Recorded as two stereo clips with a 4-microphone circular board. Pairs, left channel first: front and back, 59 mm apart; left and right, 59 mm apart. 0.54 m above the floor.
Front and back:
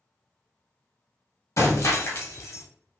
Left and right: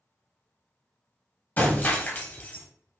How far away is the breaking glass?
About 0.8 m.